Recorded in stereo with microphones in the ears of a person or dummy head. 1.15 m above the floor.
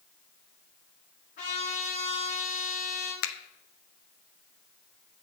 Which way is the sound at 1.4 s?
50° left (ahead or behind).